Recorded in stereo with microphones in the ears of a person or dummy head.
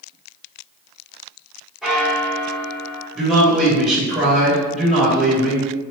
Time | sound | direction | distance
1.8 | a bell | 10° right (ahead or behind) | 1.5 m
3.1 | a man speaking | 5° right (ahead or behind) | 1.6 m